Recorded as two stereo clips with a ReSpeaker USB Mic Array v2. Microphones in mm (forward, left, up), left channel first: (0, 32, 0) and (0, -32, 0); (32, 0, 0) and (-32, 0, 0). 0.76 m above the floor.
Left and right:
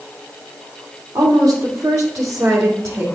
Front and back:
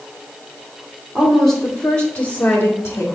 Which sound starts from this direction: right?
A woman speaking, at 1.1 s.